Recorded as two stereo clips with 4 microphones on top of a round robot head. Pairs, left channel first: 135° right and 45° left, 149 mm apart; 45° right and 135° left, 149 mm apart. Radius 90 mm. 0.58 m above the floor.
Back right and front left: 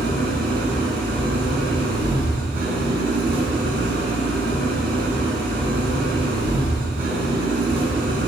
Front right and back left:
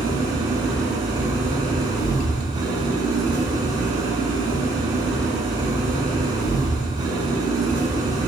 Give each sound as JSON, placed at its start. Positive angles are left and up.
{"t": 0.0, "sound": "an engine running", "azimuth_deg": 70, "distance_m": 6.5}